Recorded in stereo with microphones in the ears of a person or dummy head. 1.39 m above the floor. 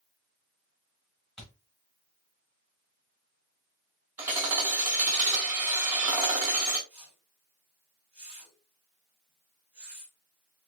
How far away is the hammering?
About 1.4 m.